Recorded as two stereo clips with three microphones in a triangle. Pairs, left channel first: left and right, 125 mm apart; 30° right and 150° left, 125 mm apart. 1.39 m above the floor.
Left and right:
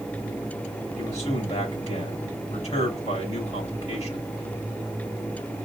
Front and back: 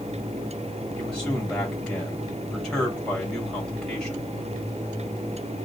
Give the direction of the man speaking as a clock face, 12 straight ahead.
10 o'clock.